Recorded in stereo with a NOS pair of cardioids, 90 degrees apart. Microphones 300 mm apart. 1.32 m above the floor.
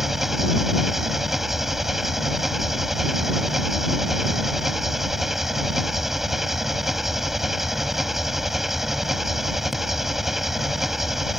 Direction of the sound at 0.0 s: Straight ahead.